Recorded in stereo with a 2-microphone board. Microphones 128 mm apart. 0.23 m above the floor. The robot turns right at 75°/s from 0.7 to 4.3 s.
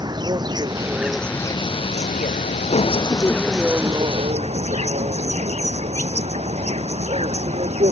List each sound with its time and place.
0.0 s an insect: 35° right; by 7.9 s 125° right